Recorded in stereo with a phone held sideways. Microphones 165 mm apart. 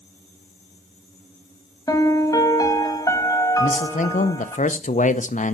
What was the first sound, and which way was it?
A piano, 20° left (ahead or behind).